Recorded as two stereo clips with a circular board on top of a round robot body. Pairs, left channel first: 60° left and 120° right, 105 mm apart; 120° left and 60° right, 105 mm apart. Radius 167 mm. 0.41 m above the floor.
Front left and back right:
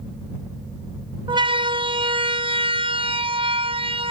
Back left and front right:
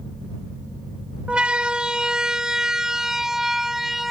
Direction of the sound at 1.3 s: 140° right.